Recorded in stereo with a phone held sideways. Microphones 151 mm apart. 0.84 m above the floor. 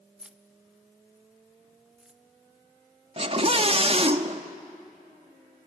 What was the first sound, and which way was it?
Keys jangling, 5° right (ahead or behind).